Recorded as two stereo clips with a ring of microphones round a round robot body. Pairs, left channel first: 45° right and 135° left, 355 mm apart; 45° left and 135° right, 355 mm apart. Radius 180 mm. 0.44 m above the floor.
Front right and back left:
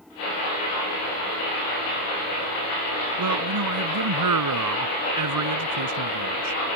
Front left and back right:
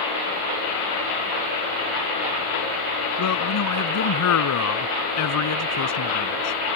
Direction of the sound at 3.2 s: 90° left.